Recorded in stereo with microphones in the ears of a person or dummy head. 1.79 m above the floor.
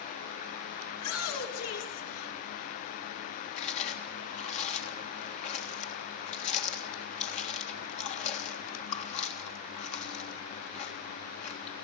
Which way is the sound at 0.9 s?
90° left.